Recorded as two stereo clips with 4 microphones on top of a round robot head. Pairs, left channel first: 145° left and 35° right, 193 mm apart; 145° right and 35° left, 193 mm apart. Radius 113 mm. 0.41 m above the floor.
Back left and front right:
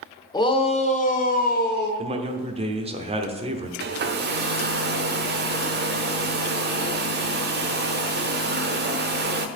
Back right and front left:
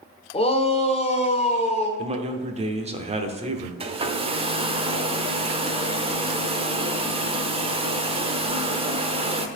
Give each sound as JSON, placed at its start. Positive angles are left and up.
{"t": 0.3, "sound": "a shout", "azimuth_deg": -165, "distance_m": 1.0}
{"t": 2.0, "sound": "a man speaking", "azimuth_deg": 0, "distance_m": 0.9}
{"t": 3.8, "sound": "a hair dryer", "azimuth_deg": -20, "distance_m": 0.7}